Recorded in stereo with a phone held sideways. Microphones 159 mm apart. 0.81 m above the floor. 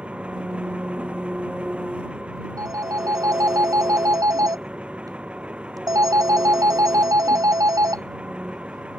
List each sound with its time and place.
0.0 s an engine running: 5° right (ahead or behind)
2.6 s a phone ringing: 20° right (ahead or behind)